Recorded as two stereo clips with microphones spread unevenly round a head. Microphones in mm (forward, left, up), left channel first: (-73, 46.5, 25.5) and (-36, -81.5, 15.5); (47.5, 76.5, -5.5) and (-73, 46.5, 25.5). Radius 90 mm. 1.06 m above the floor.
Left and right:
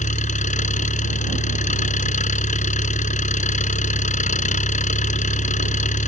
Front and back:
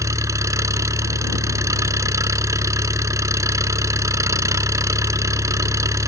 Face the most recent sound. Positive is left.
turn(degrees=130)